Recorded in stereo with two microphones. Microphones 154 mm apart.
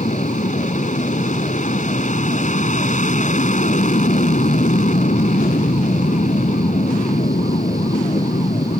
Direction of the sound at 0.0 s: 55° left (ahead or behind).